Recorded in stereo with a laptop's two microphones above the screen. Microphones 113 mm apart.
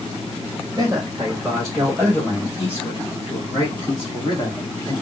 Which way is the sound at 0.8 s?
25° right (ahead or behind).